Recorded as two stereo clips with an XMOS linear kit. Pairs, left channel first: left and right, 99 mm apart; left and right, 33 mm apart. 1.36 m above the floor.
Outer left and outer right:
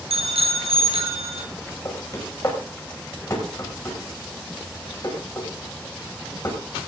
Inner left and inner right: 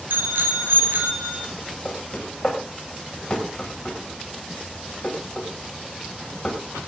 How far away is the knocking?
About 5.5 m.